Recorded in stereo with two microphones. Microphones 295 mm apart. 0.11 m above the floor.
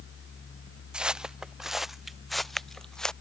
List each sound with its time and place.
0.9 s footsteps: 5° right (ahead or behind); by 3.1 s centre (ahead or behind)